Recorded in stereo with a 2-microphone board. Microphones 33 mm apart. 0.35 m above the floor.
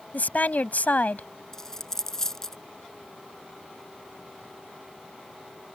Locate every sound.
0.1 s a woman speaking: 60° left (ahead or behind)
1.5 s a dropped coin: 15° left (ahead or behind)